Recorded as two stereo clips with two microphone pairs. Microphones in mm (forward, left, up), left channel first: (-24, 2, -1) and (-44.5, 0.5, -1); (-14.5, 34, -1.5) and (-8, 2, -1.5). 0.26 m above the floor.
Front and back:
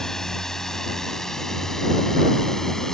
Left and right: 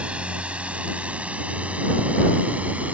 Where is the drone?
50° right; by 2.9 s 55° right.